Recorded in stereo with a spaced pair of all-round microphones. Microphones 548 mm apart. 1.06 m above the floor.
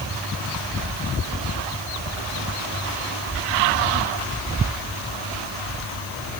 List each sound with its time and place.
Only background noise.